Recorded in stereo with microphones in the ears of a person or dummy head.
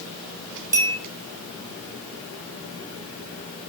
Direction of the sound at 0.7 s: 15° right (ahead or behind).